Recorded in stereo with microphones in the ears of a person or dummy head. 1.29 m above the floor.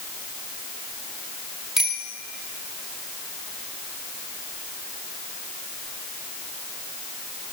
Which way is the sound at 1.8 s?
Centre (ahead or behind).